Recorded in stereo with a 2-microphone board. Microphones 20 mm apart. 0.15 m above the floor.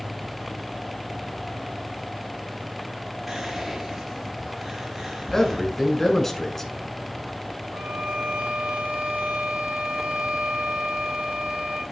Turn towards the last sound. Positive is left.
turn(degrees=-55)  # may be behind; listen again after turning